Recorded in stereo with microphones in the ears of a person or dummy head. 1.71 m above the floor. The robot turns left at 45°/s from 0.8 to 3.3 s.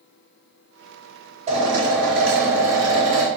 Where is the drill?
40° right, 4.5 m; by 3.3 s 120° right, 4.5 m.